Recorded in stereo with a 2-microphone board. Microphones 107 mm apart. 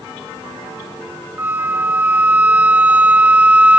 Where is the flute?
15° right (ahead or behind), 0.6 m.